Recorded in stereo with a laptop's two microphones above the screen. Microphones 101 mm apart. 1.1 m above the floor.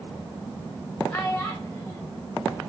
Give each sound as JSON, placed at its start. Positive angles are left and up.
{"t": 1.1, "sound": "a child speaking", "side_deg": 20, "distance_m": 3.0}